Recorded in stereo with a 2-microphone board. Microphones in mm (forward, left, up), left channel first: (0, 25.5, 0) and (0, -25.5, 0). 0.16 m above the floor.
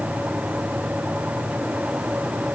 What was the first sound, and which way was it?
Only background noise.